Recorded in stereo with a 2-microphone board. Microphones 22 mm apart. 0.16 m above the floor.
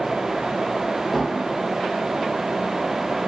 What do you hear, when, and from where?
1.1 s dishes clattering: 10° right (ahead or behind), 3.5 m